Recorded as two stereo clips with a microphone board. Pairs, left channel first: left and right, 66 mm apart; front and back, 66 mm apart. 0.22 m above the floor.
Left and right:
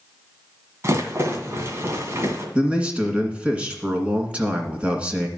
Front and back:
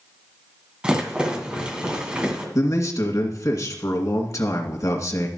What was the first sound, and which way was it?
A rattle, 110° right.